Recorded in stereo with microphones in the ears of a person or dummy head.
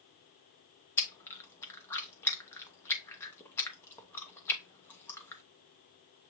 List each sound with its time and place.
1.0 s chewing: 15° left (ahead or behind), 0.8 m